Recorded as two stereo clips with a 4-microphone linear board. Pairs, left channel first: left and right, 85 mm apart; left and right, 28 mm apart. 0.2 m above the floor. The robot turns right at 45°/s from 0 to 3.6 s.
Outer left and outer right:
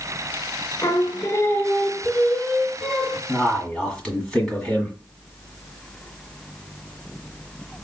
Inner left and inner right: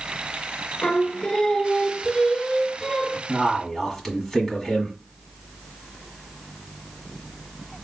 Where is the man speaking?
Centre (ahead or behind), 1.6 m; by 5.0 s 10° left (ahead or behind), 1.6 m.